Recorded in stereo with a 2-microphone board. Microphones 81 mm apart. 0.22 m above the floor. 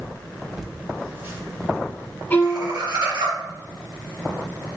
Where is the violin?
25° left (ahead or behind), 0.9 m.